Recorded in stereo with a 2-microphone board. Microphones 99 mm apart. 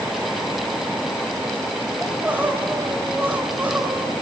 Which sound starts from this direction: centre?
Crying, at 2.0 s.